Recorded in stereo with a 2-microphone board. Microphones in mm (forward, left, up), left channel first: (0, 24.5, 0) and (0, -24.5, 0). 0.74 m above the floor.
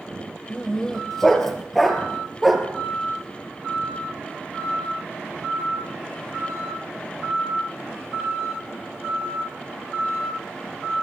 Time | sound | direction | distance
0.5 | a dog barking | 10° left (ahead or behind) | 5 m